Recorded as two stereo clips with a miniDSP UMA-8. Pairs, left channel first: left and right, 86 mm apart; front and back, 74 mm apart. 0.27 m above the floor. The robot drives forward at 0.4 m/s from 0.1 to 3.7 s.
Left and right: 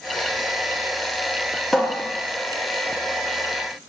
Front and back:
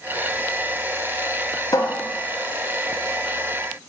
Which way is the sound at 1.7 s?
5° left.